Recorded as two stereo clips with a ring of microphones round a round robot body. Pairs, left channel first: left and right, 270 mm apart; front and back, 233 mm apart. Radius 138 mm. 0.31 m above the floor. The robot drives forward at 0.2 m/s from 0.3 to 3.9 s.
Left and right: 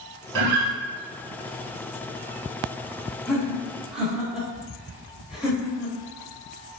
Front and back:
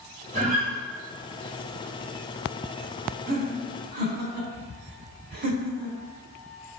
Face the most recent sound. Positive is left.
turn(degrees=-175)